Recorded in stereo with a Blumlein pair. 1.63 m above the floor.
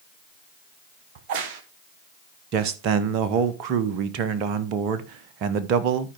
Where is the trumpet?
No trumpet in this recording.